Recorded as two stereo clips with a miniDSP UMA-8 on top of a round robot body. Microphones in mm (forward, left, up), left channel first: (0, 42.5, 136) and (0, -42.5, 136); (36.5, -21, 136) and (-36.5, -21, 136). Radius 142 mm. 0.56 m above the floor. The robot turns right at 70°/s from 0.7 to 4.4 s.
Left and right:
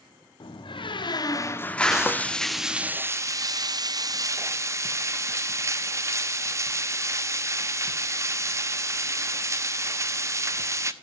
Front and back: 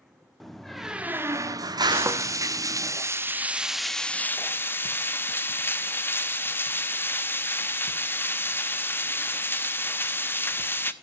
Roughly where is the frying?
Behind left.